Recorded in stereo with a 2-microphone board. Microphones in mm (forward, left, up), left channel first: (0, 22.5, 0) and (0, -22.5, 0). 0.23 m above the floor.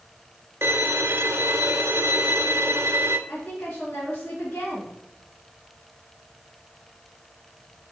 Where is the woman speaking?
45° left (ahead or behind), 2.5 m.